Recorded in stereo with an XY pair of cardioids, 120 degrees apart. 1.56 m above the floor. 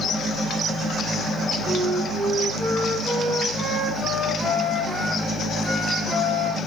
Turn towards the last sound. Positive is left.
turn(degrees=-20)